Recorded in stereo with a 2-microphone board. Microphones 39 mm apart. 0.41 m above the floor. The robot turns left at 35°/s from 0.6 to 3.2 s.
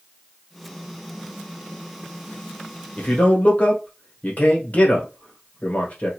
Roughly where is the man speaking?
Left.